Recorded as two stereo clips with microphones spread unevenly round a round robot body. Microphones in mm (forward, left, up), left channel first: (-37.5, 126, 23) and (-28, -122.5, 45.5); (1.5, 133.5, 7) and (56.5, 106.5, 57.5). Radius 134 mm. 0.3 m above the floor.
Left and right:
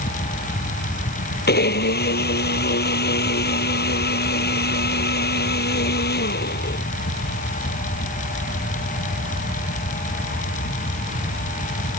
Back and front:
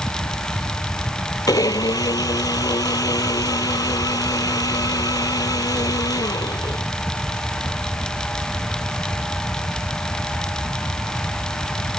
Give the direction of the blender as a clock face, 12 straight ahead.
7 o'clock.